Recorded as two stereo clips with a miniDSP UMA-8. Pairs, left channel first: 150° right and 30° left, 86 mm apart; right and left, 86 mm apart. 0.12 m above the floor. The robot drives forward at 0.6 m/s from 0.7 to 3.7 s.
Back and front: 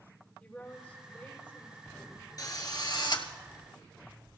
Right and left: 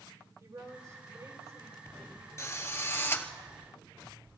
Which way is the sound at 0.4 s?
135° left.